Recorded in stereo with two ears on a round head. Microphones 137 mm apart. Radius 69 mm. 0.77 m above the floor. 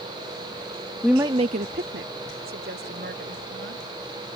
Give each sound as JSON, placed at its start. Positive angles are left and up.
{"t": 1.0, "sound": "a woman speaking", "side_deg": 5}